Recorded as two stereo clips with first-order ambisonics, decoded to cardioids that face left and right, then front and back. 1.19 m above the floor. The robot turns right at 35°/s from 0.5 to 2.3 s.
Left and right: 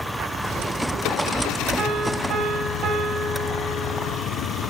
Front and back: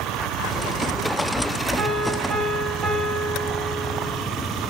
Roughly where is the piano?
Behind right.